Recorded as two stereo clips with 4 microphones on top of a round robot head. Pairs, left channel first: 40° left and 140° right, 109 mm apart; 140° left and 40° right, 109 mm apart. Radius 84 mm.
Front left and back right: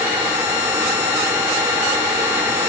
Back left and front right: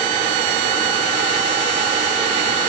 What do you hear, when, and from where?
Only background noise.